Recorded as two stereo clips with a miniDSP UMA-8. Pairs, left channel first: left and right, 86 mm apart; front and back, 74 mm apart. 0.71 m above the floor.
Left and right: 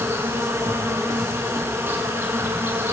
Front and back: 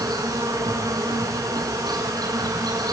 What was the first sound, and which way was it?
An insect, 155° right.